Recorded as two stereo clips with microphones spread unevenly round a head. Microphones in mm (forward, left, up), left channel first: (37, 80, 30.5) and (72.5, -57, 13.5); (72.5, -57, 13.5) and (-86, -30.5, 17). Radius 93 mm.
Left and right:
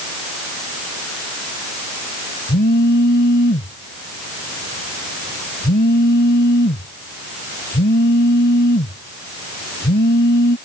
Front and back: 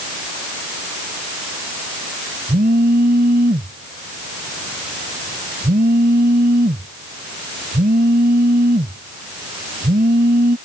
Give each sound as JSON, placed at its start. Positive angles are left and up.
{"t": 2.5, "sound": "a phone buzzing", "azimuth_deg": 125}